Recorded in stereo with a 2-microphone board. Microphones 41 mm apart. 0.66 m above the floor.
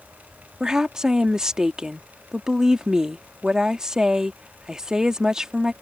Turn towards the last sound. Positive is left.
turn(degrees=-15)  # may be behind; listen again after turning